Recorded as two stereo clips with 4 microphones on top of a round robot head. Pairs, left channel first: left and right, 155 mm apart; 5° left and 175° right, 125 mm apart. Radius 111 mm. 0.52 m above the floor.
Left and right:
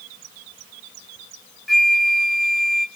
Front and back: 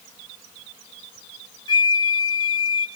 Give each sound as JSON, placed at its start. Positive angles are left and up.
{"t": 1.7, "sound": "a flute", "azimuth_deg": 0, "distance_m": 0.8}